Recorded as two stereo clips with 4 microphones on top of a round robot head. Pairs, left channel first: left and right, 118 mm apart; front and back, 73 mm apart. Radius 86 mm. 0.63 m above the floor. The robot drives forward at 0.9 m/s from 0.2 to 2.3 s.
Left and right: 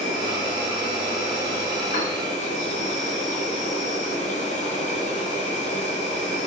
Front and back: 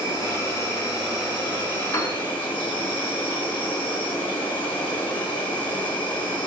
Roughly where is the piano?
Ahead left.